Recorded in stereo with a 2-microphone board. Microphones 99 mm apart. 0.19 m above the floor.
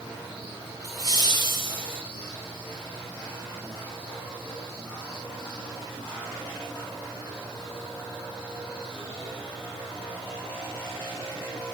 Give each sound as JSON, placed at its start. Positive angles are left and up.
{"t": 0.8, "sound": "laughter", "side_deg": -45, "distance_m": 5.0}